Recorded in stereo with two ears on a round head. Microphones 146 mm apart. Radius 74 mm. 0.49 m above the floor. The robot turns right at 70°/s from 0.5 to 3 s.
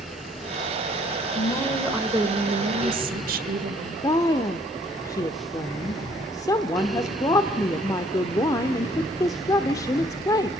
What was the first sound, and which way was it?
A woman speaking, 145° left.